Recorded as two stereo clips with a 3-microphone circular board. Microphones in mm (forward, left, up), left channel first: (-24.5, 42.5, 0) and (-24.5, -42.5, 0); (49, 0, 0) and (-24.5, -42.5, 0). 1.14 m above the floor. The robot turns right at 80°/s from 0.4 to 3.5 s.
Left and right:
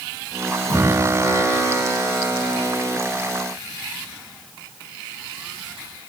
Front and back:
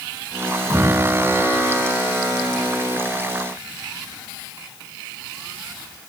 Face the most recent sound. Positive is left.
turn(degrees=-45)